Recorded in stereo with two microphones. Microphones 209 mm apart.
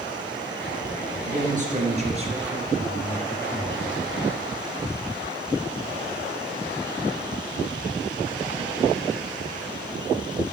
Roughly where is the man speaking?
Right.